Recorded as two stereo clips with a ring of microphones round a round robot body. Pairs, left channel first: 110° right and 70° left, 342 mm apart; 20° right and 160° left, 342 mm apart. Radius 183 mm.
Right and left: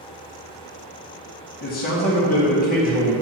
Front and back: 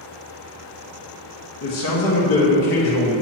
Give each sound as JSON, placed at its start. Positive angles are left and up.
{"t": 1.6, "sound": "a man speaking", "azimuth_deg": -50, "distance_m": 1.6}